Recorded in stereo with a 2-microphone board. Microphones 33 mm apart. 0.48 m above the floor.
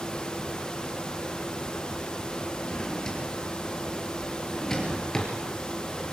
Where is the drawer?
15° left (ahead or behind), 5 m.